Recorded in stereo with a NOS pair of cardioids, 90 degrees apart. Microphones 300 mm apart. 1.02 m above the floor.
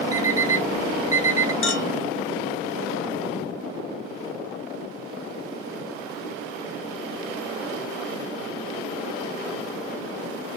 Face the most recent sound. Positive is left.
turn(degrees=45)